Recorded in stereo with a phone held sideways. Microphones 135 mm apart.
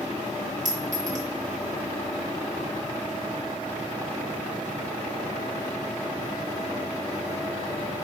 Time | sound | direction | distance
0.7 | a clink | 60° right (ahead or behind) | 0.9 m